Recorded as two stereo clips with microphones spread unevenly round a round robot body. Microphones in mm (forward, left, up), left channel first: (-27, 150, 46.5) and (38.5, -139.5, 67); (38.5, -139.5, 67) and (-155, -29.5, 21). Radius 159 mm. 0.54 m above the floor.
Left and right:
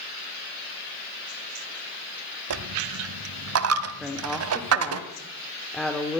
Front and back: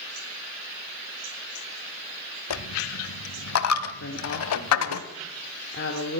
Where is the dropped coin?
35° right, 1.2 m.